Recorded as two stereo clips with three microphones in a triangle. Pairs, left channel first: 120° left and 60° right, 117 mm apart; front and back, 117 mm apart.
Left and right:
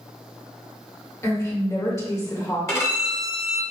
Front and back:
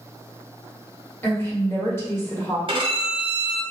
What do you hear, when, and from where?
1.2 s a woman speaking: 65° left, 1.7 m
2.7 s a violin: 175° left, 1.2 m